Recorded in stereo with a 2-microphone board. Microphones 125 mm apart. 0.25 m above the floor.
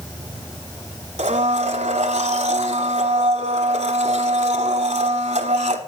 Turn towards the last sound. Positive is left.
turn(degrees=-65)  # may be behind; listen again after turning